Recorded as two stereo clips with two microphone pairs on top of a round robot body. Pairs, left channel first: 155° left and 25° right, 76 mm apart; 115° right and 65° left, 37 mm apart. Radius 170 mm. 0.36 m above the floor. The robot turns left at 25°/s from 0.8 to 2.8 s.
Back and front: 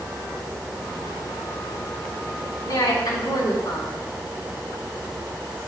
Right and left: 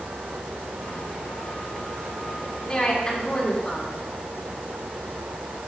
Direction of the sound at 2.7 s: 175° right.